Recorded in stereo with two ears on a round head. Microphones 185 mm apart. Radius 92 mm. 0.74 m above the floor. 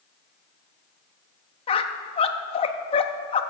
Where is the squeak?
25° left (ahead or behind), 0.6 m.